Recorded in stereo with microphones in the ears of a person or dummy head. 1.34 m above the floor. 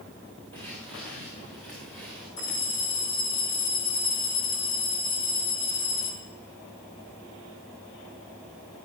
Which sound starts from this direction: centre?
Footsteps, at 0.5 s.